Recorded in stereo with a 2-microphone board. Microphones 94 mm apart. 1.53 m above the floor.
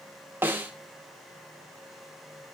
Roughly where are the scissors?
I don't hear scissors.